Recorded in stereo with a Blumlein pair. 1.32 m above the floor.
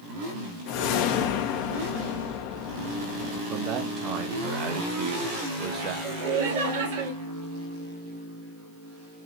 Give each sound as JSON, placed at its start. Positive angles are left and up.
{"t": 0.7, "sound": "a whoosh", "azimuth_deg": 45, "distance_m": 0.9}
{"t": 3.5, "sound": "a man speaking", "azimuth_deg": -30, "distance_m": 1.3}
{"t": 6.0, "sound": "laughter", "azimuth_deg": -55, "distance_m": 1.9}